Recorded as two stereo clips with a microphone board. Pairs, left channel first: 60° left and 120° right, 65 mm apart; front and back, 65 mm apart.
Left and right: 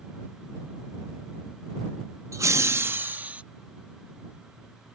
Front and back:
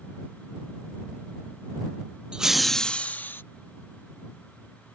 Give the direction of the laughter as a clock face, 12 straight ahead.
4 o'clock.